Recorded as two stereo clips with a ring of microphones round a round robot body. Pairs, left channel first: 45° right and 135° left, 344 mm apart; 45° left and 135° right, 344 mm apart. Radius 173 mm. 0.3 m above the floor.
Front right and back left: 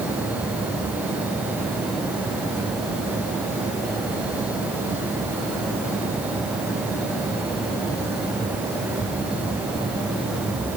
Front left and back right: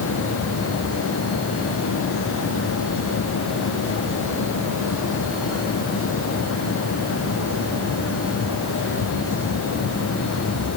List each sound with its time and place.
Only background noise.